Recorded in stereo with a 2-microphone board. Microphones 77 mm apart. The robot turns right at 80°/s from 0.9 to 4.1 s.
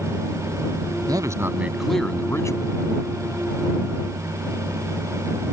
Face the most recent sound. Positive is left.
turn(degrees=180)